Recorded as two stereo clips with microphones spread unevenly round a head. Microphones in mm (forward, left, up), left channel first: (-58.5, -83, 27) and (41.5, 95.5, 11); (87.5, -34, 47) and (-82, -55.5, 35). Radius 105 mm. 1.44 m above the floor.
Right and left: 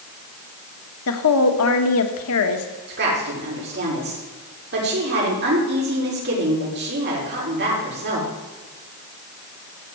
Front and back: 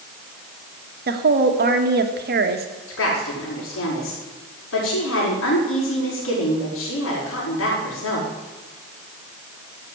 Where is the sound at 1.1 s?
140° right, 1.7 m.